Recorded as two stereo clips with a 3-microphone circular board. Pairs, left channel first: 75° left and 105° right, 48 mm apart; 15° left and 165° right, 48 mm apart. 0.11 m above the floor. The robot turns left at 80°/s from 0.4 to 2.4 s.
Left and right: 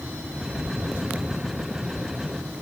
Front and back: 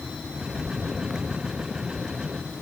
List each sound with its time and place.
Only background noise.